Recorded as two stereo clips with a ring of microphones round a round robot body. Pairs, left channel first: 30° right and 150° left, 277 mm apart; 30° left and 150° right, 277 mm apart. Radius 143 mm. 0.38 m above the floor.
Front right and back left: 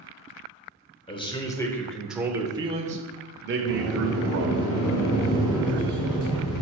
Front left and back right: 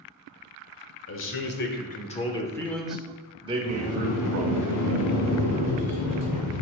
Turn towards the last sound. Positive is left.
turn(degrees=5)